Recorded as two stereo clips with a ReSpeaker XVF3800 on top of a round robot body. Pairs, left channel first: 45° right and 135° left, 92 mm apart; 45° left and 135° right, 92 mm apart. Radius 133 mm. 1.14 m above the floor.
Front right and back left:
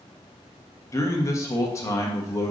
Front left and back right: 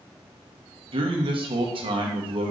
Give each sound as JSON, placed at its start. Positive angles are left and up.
{"t": 0.9, "sound": "a man speaking", "azimuth_deg": -105, "distance_m": 1.3}